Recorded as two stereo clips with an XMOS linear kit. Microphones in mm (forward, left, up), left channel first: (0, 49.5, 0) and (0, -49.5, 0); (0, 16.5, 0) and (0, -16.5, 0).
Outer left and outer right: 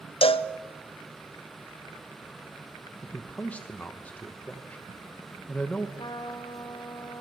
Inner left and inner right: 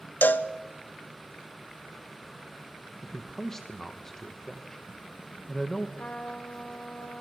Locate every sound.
0.2 s a cowbell: 70° left (ahead or behind), 0.9 m
3.0 s a man speaking: 15° left (ahead or behind), 1.2 m
6.0 s a trumpet: 50° left (ahead or behind), 2.5 m